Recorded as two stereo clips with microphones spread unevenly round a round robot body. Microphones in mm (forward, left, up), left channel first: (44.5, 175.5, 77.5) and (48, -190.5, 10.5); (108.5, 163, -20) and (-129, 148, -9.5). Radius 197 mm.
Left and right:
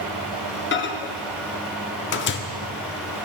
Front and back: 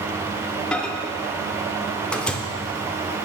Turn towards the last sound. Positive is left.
turn(degrees=75)